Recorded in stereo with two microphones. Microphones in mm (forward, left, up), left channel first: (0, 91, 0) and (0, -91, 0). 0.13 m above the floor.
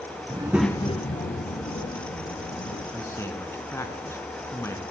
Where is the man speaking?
15° left (ahead or behind), 1.1 m.